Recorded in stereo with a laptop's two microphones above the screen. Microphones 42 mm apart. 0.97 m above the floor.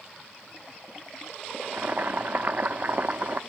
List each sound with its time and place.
1.6 s boiling: 45° right (ahead or behind), 0.9 m